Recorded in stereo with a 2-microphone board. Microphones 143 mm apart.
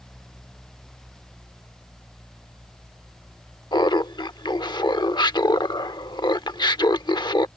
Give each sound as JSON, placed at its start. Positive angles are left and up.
{"t": 3.7, "sound": "laughter", "side_deg": 30}